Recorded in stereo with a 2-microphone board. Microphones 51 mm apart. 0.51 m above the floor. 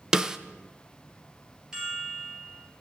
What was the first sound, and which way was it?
A snare drum, 10° right (ahead or behind).